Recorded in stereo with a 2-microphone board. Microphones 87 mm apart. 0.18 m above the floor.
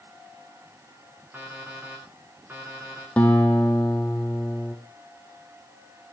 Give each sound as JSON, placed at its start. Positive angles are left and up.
{"t": 1.3, "sound": "an alarm clock", "side_deg": -20, "distance_m": 7.0}
{"t": 3.2, "sound": "a guitar", "side_deg": 15, "distance_m": 2.5}